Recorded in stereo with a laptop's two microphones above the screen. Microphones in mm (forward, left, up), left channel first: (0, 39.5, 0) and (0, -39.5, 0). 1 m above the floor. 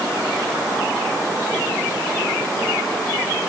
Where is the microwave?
I don't hear a microwave.